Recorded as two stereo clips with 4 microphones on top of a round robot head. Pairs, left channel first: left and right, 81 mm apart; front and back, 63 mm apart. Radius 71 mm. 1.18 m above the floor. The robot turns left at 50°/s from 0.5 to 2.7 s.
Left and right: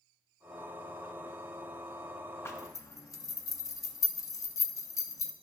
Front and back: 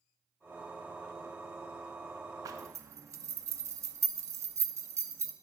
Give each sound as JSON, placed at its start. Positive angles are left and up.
{"t": 2.5, "sound": "a zipper", "azimuth_deg": 150, "distance_m": 0.8}